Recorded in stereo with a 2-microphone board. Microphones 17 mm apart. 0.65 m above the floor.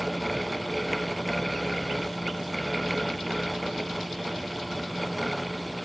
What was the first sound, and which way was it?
Only background noise.